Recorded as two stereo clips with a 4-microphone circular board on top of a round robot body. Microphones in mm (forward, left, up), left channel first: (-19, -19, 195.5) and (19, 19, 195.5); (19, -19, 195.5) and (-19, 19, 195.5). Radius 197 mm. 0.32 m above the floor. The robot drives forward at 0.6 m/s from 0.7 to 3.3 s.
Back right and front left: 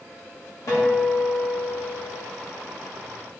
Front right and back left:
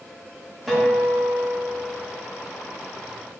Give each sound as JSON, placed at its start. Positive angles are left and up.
{"t": 0.7, "sound": "a guitar", "azimuth_deg": -135, "distance_m": 1.6}